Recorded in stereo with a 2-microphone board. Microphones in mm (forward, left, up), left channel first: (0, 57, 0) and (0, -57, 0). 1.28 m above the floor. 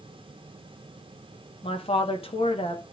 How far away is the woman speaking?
About 1.6 m.